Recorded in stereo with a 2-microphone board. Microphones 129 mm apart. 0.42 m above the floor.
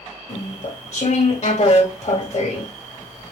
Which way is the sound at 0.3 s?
50° left (ahead or behind).